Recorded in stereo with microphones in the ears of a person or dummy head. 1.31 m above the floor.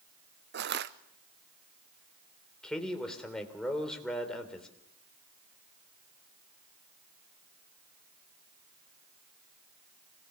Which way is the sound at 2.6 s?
10° left (ahead or behind).